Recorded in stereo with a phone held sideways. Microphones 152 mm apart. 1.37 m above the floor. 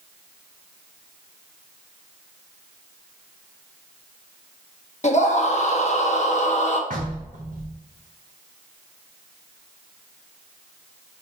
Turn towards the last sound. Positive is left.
turn(degrees=-55)  # may be behind; listen again after turning